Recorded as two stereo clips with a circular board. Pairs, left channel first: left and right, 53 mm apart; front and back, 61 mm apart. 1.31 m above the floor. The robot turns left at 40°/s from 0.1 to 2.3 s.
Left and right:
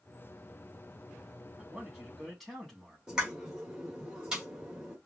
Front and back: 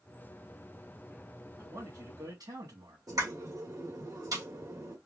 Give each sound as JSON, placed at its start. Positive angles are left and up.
{"t": 1.6, "sound": "a man speaking", "azimuth_deg": -150, "distance_m": 2.0}
{"t": 3.1, "sound": "a pop", "azimuth_deg": -165, "distance_m": 1.7}